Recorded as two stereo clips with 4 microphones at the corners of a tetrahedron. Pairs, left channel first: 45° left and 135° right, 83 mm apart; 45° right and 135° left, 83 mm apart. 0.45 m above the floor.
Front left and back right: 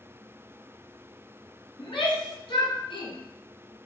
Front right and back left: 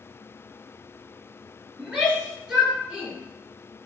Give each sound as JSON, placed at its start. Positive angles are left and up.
{"t": 1.8, "sound": "a shout", "azimuth_deg": 60, "distance_m": 5.0}